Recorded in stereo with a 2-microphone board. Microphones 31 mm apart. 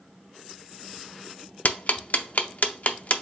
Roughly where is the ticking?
Left.